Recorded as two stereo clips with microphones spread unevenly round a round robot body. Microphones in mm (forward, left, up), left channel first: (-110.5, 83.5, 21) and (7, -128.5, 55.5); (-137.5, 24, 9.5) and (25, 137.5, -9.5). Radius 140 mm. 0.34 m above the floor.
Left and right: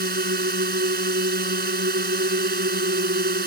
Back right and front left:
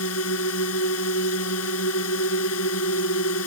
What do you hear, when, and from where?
0.0 s a drone: 115° right